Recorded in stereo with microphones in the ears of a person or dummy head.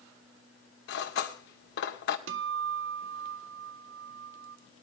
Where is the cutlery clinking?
70° left (ahead or behind), 2 m.